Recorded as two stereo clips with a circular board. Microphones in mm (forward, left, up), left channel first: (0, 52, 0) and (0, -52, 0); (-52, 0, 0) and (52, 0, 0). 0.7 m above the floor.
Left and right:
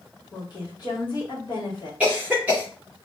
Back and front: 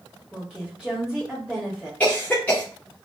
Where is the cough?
135° right, 0.7 m.